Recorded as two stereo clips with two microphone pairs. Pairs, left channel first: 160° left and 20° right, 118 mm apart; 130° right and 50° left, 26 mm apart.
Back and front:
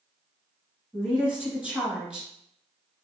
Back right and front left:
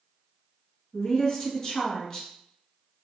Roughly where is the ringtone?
No ringtone in this recording.